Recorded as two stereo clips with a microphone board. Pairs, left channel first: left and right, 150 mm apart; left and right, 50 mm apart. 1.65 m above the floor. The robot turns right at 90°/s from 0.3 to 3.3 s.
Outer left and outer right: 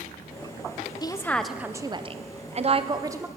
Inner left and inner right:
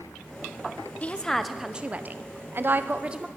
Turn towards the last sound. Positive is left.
turn(degrees=-15)